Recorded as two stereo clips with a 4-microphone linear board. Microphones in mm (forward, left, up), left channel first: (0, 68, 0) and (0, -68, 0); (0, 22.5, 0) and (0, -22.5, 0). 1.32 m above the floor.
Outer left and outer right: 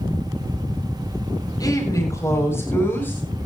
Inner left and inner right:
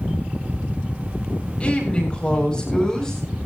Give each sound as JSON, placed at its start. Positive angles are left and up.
{"t": 1.6, "sound": "a woman speaking", "side_deg": 25, "distance_m": 7.5}